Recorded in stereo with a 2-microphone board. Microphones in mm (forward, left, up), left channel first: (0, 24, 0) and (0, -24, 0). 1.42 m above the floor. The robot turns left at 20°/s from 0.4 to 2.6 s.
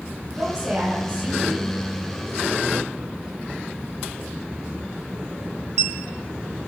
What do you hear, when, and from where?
0.3 s a woman speaking: centre (ahead or behind), 7.5 m; by 1.8 s 30° right (ahead or behind), 7.5 m